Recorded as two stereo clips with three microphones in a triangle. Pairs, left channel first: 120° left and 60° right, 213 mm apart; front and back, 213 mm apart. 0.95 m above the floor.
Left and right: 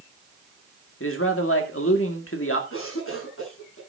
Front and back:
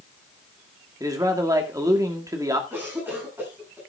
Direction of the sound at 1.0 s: 105° left.